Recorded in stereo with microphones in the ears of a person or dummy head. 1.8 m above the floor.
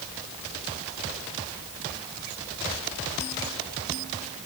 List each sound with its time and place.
Only background noise.